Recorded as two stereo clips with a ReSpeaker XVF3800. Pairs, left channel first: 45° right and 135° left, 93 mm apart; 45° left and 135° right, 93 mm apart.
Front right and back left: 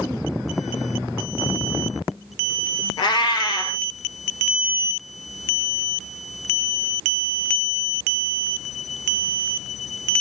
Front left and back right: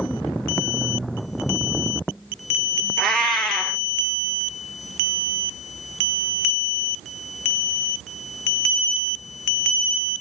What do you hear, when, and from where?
3.0 s a cat meowing: 35° right, 1.2 m